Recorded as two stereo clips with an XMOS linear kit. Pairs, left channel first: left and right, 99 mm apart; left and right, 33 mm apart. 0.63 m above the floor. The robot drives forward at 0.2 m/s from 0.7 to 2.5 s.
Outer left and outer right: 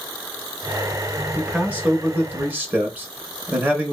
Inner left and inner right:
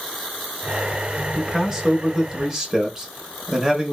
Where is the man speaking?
15° right (ahead or behind), 0.7 m; by 3.9 s 20° right (ahead or behind), 0.6 m.